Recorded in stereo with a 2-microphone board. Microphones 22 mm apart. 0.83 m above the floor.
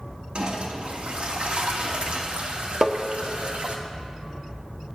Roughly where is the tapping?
Right.